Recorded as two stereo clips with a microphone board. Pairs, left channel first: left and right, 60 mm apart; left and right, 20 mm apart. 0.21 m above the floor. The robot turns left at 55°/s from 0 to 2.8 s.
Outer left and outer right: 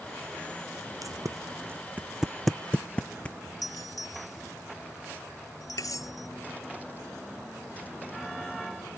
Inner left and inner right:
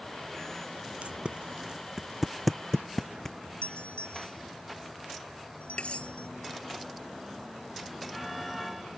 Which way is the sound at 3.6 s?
75° left (ahead or behind).